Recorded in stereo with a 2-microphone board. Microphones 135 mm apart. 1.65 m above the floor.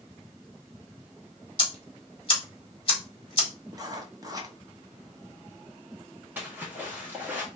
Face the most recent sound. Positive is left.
turn(degrees=-15)  # may be behind; listen again after turning